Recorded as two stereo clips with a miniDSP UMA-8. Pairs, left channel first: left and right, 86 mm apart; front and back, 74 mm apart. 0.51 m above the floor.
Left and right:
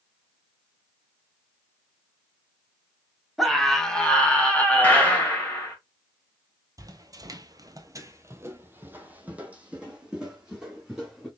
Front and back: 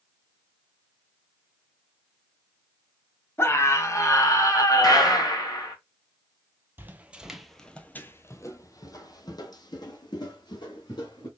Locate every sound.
3.4 s a scream: straight ahead, 1.1 m; by 5.3 s 20° left, 2.0 m
4.8 s a gunshot: 20° left, 2 m
6.8 s footsteps: 125° right, 0.8 m; by 11.3 s 5° right, 2 m